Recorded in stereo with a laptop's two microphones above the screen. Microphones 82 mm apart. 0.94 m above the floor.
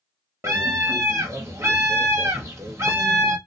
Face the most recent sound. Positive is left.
turn(degrees=-35)  # may be behind; listen again after turning